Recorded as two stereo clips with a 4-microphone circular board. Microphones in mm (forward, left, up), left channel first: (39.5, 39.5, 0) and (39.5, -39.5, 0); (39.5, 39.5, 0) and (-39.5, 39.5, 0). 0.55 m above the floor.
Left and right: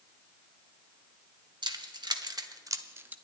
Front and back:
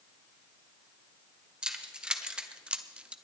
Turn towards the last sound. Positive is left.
turn(degrees=-125)